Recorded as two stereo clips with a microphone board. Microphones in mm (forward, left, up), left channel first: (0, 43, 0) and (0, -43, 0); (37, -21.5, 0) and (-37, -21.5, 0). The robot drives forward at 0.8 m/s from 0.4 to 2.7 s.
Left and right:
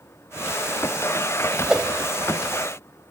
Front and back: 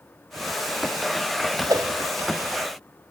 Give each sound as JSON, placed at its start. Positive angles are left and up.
{"t": 1.7, "sound": "a whoosh", "azimuth_deg": -175, "distance_m": 2.5}